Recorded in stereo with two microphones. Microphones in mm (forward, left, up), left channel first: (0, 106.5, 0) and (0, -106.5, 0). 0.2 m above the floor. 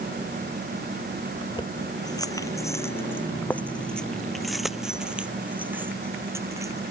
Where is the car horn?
I don't hear a car horn.